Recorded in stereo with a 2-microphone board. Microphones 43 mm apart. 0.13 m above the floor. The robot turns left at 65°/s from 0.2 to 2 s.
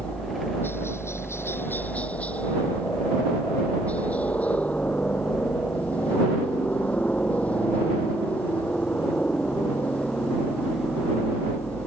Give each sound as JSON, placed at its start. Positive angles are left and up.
{"t": 0.0, "sound": "a helicopter", "azimuth_deg": 150}